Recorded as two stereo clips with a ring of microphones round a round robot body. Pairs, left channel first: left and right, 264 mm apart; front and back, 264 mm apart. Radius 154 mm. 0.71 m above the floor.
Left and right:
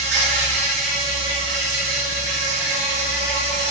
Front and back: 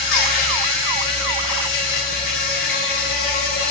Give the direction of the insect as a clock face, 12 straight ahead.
1 o'clock.